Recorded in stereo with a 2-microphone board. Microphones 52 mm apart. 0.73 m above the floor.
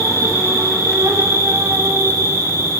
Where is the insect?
75° right (ahead or behind), 8.5 m.